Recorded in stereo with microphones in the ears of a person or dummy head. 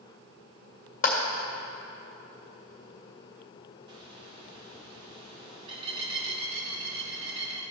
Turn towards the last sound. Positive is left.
turn(degrees=-25)  # may be behind; listen again after turning